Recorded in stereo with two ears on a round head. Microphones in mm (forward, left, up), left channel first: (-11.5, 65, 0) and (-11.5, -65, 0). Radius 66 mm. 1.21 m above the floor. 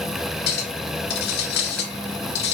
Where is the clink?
75° left (ahead or behind), 2.5 m.